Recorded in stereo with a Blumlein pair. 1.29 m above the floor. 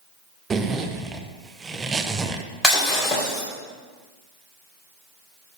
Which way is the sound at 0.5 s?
15° right.